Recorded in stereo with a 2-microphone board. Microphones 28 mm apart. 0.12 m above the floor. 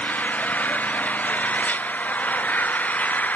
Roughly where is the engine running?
Left.